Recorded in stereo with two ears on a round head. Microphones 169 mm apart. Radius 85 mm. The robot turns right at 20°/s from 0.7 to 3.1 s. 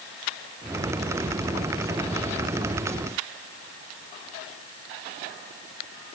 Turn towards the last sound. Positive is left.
No sound to turn to.